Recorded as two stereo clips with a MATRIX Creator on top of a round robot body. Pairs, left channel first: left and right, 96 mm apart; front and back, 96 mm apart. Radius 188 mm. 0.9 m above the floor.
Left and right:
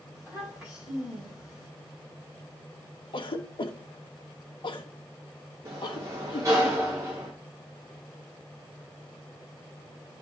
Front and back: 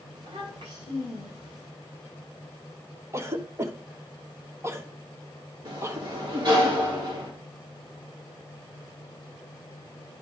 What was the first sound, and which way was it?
A child speaking, 160° right.